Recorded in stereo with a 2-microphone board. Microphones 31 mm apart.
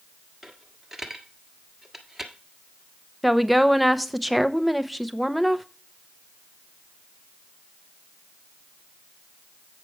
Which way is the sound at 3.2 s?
5° right (ahead or behind).